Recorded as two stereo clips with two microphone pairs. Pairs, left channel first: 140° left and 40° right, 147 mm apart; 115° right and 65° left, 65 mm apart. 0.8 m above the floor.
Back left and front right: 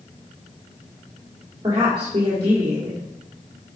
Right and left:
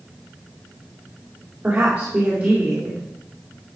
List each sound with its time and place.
1.6 s a woman speaking: 10° left, 2 m